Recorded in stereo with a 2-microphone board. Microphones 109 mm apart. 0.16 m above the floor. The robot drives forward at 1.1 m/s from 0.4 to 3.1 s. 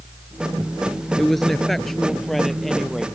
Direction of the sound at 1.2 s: 5° left (ahead or behind).